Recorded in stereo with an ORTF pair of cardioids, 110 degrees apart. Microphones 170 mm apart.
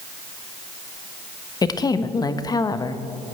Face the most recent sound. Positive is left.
turn(degrees=25)